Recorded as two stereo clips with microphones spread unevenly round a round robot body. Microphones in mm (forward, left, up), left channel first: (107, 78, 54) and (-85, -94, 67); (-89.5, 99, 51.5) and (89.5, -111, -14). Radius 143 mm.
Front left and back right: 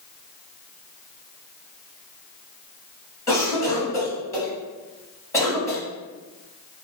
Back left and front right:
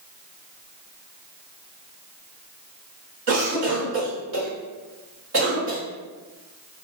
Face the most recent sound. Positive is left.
turn(degrees=-35)